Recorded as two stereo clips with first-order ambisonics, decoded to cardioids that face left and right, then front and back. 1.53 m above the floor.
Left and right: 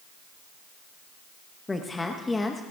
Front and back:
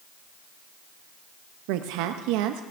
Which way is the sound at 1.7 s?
170° left.